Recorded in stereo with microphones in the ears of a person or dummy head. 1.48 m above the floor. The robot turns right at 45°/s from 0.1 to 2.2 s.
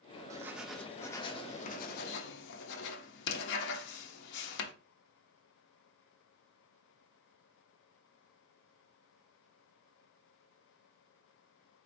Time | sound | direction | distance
0.3 | writing | 20° right | 0.8 m